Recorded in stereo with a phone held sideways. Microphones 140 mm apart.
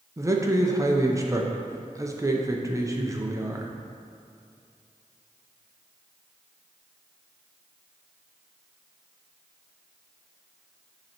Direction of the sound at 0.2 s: 20° right (ahead or behind).